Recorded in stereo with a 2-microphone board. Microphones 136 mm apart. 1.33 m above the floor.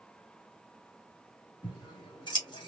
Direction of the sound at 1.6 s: 35° left (ahead or behind).